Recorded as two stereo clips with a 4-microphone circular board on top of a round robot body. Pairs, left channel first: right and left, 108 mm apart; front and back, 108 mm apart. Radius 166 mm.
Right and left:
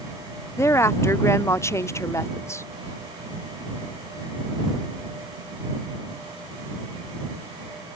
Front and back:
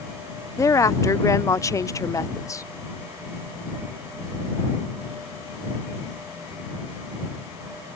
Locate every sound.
0.6 s a woman speaking: 40° right